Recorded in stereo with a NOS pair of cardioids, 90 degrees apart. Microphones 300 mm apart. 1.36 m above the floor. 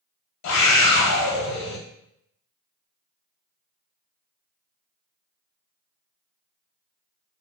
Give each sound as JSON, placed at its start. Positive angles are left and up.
{"t": 0.4, "sound": "a scream", "azimuth_deg": 70, "distance_m": 0.9}